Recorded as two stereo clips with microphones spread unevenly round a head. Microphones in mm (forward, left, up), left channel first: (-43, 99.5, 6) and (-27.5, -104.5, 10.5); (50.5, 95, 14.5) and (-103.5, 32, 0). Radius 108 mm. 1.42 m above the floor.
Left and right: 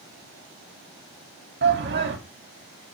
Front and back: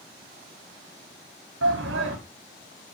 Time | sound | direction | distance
1.6 | a shout | 120° right | 3 m